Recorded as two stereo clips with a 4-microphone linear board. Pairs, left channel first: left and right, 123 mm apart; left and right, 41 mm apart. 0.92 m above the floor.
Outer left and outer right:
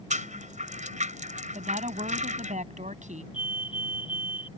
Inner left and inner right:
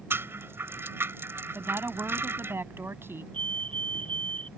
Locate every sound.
0.1 s a rattle: 85° right
1.6 s a woman speaking: 80° right
3.3 s a fire alarm: 40° left (ahead or behind)